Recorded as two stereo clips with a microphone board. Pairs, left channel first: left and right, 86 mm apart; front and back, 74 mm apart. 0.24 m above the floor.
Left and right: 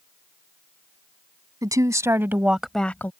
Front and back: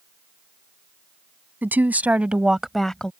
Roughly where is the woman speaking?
Behind right.